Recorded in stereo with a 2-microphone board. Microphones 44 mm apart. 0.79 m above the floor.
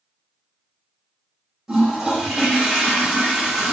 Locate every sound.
1.7 s a toilet flushing: 10° right (ahead or behind), 0.7 m